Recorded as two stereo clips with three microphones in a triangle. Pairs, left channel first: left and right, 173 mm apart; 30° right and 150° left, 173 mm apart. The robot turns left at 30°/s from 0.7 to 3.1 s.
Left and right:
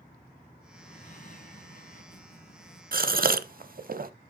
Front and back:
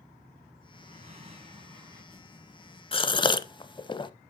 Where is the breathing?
125° left, 2.5 m; by 2.8 s 65° left, 2.5 m.